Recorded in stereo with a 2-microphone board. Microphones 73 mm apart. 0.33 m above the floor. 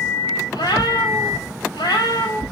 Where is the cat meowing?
80° left, 4.5 m.